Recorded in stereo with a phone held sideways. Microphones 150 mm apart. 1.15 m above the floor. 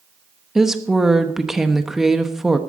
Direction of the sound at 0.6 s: 5° right (ahead or behind).